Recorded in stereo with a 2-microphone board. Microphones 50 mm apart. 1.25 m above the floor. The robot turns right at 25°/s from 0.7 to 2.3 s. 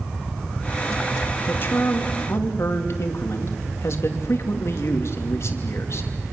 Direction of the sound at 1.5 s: 40° left (ahead or behind).